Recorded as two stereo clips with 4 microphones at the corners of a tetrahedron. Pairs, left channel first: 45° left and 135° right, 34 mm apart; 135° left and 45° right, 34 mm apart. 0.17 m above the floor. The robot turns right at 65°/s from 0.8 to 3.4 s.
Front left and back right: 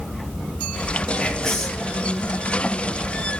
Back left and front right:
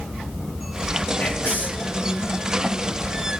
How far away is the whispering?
About 3.5 m.